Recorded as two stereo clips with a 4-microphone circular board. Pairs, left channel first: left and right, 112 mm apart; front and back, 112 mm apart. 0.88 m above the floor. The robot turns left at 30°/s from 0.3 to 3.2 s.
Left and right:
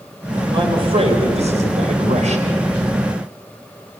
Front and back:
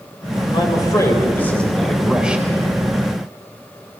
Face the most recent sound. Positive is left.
turn(degrees=-130)